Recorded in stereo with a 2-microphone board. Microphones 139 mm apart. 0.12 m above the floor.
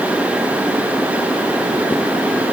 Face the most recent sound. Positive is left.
No sound to turn to.